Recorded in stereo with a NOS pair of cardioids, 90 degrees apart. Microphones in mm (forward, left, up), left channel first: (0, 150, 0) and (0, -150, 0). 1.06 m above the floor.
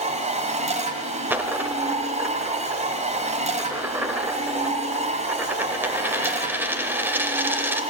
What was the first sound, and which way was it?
A machine running, 25° right.